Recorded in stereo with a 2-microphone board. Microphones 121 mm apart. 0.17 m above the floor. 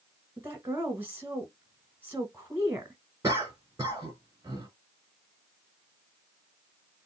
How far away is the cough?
About 1.9 m.